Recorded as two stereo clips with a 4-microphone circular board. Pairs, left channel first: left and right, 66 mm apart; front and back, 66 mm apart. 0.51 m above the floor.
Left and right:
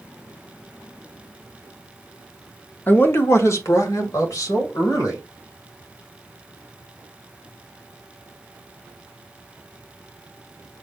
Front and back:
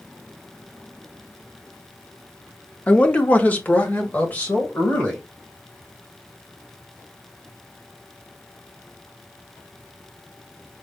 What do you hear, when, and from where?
2.9 s a man speaking: 55° left, 0.7 m; by 5.2 s 65° left, 2.5 m